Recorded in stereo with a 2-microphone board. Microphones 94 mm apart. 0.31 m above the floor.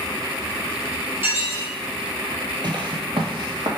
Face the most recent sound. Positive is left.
turn(degrees=-55)  # may be behind; listen again after turning